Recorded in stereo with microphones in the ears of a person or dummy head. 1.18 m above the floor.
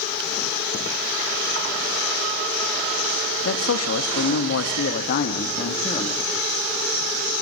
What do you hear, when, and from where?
3.5 s a man speaking: 80° left, 1.7 m; by 6.3 s 25° left (ahead or behind), 2.0 m